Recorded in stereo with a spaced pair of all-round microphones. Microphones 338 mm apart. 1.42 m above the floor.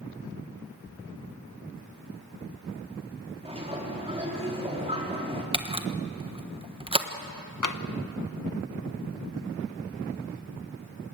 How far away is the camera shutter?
About 1.2 m.